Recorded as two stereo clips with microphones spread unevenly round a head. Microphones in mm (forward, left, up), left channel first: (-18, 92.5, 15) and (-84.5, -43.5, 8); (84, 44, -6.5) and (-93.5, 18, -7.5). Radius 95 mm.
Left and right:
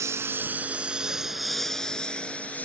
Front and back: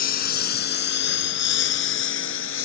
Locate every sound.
0.0 s a lawn mower: 40° right; by 2.7 s 20° right